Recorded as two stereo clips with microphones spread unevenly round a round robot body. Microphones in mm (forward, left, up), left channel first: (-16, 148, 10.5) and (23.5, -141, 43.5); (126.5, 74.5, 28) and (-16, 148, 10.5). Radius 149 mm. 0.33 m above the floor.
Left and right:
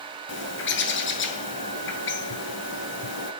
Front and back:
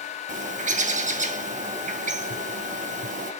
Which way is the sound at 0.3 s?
135° left.